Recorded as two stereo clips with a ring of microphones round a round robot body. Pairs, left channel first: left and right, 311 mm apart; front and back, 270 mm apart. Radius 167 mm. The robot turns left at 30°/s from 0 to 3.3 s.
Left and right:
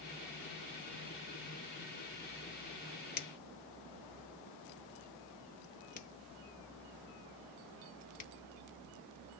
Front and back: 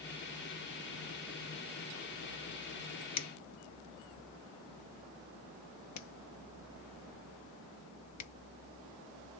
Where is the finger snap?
30° left, 0.9 m; by 8.3 s 25° left, 0.9 m.